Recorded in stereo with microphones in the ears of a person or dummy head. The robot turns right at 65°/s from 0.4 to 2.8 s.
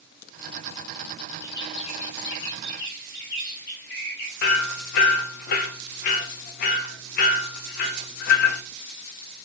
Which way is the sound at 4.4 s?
60° left (ahead or behind).